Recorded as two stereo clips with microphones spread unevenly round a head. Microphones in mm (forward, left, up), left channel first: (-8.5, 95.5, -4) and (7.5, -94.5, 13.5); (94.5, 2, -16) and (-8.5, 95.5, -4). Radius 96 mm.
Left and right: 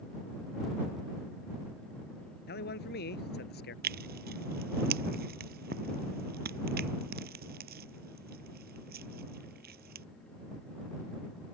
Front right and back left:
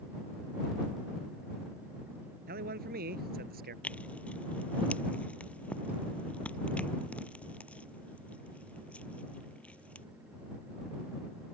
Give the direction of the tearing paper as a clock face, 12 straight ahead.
4 o'clock.